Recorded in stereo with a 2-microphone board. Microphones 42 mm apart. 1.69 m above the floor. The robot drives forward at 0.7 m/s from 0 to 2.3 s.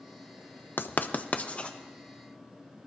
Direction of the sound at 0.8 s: 50° left (ahead or behind).